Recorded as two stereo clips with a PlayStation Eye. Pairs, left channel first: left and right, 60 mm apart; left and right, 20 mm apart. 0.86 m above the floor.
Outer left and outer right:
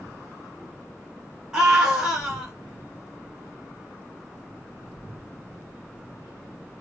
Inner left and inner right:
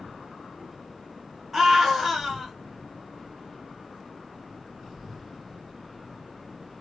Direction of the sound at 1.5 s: 10° right (ahead or behind).